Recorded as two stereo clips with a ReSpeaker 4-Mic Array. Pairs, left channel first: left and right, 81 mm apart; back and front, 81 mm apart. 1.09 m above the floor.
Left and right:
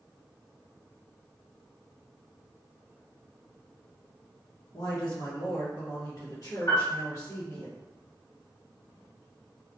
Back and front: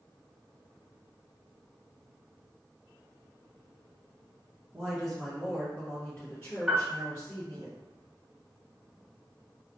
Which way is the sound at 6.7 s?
80° left.